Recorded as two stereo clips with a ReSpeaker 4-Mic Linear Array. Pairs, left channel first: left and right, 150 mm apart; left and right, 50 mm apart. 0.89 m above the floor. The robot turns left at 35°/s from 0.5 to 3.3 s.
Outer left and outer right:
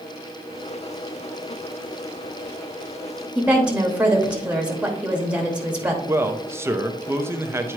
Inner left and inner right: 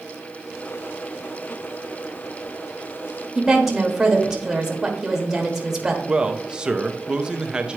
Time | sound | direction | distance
3.4 | a woman speaking | 10° right (ahead or behind) | 1.3 m
6.1 | a man speaking | 15° right (ahead or behind) | 0.6 m